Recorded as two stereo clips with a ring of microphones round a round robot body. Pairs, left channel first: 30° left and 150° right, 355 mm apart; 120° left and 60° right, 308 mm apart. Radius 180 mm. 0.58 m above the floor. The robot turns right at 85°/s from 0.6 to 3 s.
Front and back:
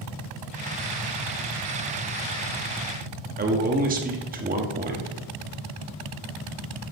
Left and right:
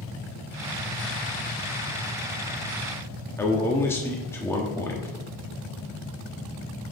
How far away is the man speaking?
About 1.2 m.